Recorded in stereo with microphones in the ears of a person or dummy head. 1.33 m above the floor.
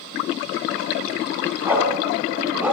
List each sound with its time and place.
1.6 s a dog barking: 10° right (ahead or behind), 6 m